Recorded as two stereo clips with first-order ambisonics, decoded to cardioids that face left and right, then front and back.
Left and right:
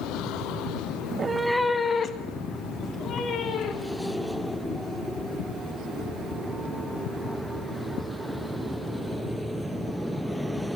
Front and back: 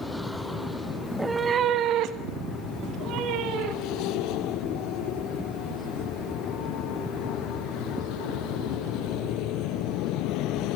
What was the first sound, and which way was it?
A cat meowing, 75° right.